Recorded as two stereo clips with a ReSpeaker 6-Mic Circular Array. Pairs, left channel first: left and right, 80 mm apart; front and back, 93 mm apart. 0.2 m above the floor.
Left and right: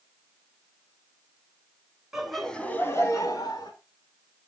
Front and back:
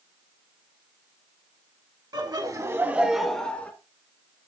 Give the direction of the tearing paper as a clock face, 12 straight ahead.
No tearing paper in this recording.